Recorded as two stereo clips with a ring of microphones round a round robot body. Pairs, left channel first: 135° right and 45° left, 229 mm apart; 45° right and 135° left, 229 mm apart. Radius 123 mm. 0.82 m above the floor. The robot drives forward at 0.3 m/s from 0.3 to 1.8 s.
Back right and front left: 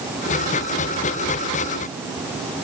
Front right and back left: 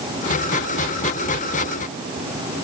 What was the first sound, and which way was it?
Only background noise.